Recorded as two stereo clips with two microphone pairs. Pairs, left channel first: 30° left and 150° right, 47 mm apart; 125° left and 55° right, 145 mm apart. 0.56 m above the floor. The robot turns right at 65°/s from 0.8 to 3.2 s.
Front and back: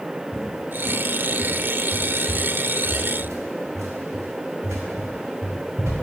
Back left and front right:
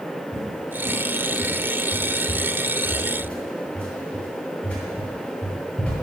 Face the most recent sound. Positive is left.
turn(degrees=-155)